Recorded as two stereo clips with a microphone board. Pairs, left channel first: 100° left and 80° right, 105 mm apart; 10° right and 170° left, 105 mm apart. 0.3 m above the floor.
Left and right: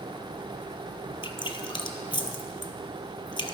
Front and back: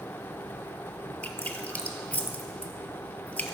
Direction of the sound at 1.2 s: 60° left.